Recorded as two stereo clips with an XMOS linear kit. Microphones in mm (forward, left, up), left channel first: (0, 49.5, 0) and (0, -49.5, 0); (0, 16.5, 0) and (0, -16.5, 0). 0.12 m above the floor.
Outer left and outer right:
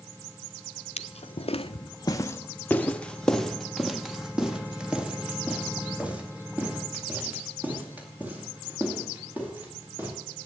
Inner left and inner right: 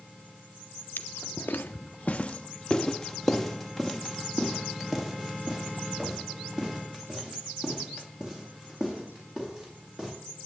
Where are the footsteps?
85° left, 0.7 m; by 10.1 s 20° right (ahead or behind), 5 m.